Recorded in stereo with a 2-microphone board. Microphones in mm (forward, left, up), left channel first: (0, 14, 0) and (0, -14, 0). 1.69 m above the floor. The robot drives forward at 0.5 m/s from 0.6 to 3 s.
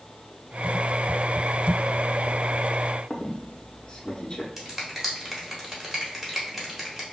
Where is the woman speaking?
I don't hear a woman speaking.